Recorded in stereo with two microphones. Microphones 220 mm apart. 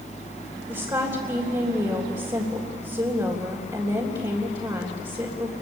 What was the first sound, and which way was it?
A woman speaking, 20° right (ahead or behind).